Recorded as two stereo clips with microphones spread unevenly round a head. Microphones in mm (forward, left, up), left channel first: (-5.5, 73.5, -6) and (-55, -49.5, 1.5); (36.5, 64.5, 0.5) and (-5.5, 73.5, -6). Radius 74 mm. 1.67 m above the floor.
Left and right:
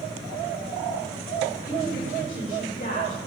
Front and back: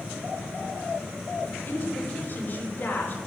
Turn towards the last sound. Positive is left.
turn(degrees=25)